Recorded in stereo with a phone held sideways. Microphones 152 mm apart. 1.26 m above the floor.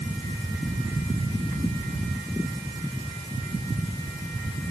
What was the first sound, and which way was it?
Only background noise.